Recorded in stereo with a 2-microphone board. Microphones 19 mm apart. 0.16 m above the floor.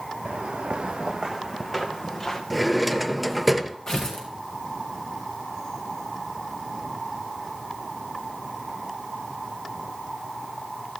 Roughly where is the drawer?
Centre.